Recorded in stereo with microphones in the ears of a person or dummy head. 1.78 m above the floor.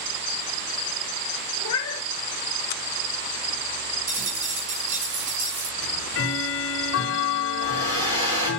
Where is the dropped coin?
65° right (ahead or behind), 3.5 m.